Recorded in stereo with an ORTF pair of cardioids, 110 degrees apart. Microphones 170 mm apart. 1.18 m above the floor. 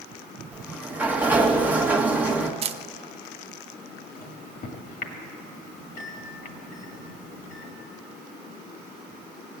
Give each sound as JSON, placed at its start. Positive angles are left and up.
{"t": 0.5, "sound": "a sliding door", "azimuth_deg": -10, "distance_m": 1.1}
{"t": 2.6, "sound": "a camera shutter", "azimuth_deg": -35, "distance_m": 0.6}
{"t": 4.2, "sound": "a microwave", "azimuth_deg": 60, "distance_m": 1.8}